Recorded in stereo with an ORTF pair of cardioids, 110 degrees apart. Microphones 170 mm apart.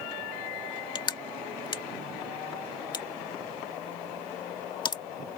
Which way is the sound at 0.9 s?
25° left.